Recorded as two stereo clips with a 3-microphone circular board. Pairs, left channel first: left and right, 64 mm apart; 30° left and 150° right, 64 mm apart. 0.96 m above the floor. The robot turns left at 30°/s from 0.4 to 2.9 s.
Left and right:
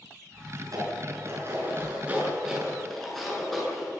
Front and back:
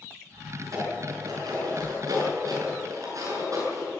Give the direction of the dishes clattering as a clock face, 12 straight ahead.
4 o'clock.